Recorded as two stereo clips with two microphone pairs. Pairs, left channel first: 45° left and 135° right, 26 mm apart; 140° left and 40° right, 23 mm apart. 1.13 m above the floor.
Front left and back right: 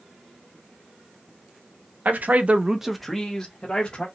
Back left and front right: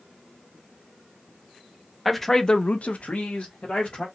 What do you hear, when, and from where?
2.0 s a man speaking: 135° right, 0.7 m; by 4.0 s 105° left, 1.5 m